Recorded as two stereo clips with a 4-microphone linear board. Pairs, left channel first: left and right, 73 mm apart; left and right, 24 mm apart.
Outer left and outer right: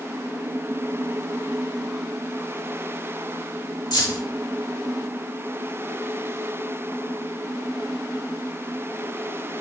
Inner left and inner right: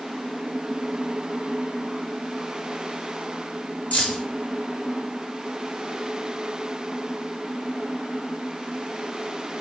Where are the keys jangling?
75° left (ahead or behind), 1.0 m.